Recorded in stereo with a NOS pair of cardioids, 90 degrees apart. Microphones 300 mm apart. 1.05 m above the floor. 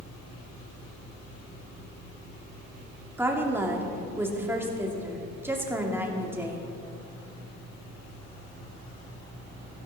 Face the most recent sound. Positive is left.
turn(degrees=-10)